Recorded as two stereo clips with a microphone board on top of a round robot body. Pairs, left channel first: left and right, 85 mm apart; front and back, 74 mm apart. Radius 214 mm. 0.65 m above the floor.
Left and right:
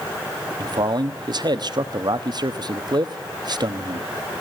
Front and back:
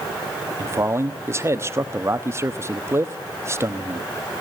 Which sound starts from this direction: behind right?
A man speaking, at 0.6 s.